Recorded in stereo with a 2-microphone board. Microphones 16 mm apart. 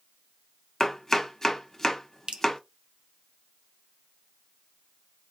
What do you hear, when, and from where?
0.8 s chopping: 25° left (ahead or behind), 0.7 m
2.3 s dripping: 65° right (ahead or behind), 0.6 m